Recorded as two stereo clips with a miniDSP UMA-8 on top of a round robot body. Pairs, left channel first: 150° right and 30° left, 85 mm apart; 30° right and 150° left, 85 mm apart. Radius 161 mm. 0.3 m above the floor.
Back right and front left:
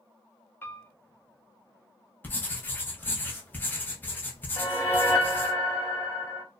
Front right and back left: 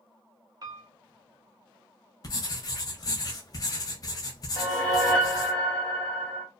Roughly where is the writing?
Right.